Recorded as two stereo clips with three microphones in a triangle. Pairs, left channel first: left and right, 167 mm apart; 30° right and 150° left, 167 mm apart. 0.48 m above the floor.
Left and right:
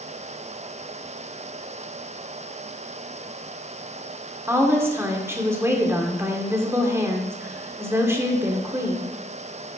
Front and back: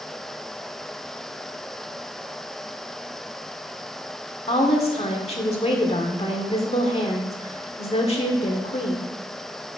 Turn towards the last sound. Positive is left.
turn(degrees=-25)